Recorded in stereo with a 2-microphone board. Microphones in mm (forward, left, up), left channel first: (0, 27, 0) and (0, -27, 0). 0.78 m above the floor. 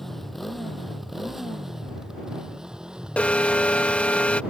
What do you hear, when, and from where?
0.0 s a motorcycle: 5° left (ahead or behind); by 4.5 s 20° right (ahead or behind)
3.2 s an alarm: 25° left (ahead or behind)